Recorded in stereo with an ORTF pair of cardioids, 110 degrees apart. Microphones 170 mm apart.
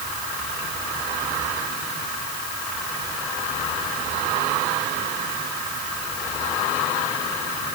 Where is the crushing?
No crushing in this recording.